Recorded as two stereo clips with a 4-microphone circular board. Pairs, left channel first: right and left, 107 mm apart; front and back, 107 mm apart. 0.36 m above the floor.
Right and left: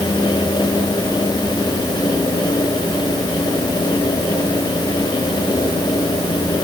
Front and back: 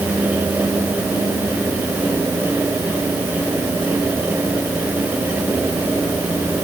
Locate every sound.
Only background noise.